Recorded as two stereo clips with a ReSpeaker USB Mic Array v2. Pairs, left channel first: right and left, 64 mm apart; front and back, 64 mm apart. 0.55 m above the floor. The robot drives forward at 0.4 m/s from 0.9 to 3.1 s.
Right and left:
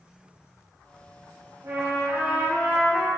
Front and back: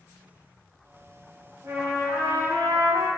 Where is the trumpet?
130° left, 0.6 m; by 3.1 s 155° left, 1.0 m.